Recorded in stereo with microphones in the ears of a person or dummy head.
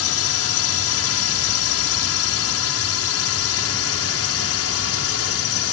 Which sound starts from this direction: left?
A drone, at 0.0 s.